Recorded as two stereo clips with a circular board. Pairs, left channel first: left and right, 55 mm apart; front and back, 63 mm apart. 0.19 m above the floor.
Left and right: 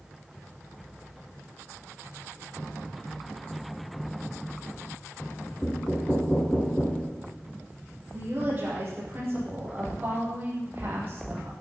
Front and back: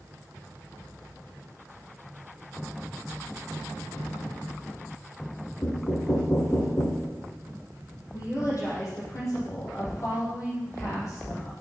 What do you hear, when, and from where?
5.6 s knocking: 20° left, 2 m
8.1 s a woman speaking: 35° right, 6.5 m